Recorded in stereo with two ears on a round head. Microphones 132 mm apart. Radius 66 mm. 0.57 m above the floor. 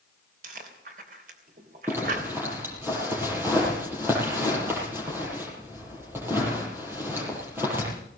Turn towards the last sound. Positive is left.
turn(degrees=-15)  # may be behind; listen again after turning